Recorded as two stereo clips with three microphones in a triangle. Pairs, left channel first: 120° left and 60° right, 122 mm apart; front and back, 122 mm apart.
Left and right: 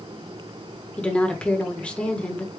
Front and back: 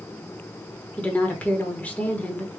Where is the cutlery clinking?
No cutlery clinking in this recording.